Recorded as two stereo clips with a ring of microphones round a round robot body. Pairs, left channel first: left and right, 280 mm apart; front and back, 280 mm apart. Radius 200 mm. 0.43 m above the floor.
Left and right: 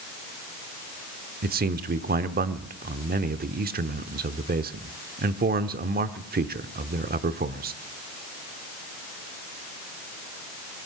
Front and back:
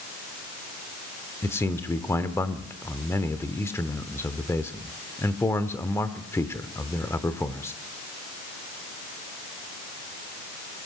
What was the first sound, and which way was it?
A man speaking, 75° right.